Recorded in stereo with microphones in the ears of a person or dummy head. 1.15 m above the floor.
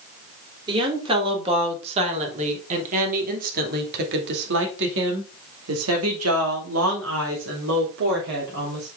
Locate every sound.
0.7 s a woman speaking: 30° right (ahead or behind), 3.5 m; by 8.9 s 60° right (ahead or behind), 3 m